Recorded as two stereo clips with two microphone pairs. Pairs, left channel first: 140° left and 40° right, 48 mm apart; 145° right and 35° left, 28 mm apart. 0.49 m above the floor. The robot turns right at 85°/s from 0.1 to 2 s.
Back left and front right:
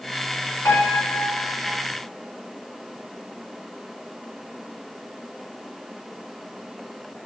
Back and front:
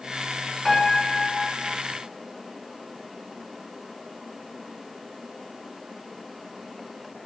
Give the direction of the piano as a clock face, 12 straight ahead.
8 o'clock.